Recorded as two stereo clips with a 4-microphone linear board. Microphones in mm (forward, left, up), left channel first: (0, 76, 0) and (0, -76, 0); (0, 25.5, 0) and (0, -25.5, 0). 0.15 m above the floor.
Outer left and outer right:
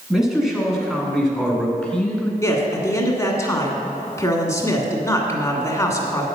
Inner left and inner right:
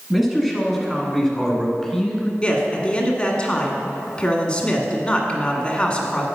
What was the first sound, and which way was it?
A man speaking, 5° right (ahead or behind).